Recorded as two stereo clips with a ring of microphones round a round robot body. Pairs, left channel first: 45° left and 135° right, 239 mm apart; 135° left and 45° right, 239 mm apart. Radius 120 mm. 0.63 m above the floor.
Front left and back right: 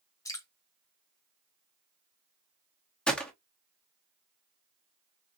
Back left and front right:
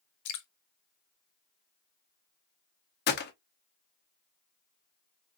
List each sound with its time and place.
0.2 s dripping: 120° left, 0.9 m
3.1 s a gunshot: 130° left, 0.8 m